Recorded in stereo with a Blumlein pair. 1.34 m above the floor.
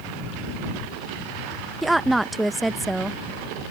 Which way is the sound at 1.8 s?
5° right.